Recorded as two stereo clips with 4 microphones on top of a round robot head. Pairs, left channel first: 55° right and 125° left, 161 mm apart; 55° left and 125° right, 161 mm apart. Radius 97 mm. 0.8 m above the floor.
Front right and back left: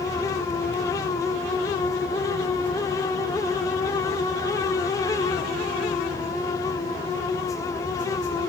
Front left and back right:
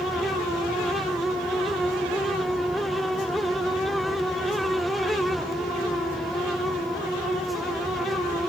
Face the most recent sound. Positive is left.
No sound to turn to.